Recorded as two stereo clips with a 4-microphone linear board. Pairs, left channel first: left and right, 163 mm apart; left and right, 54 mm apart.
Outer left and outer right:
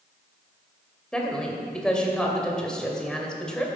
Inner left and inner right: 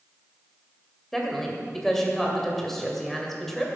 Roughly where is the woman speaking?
Centre.